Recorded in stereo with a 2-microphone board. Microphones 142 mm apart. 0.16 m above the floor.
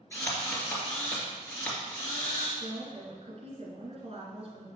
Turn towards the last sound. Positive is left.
turn(degrees=-45)  # may be behind; listen again after turning